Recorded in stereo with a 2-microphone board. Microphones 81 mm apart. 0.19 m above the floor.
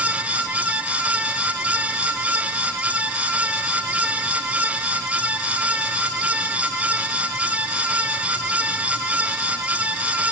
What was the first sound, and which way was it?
Only background noise.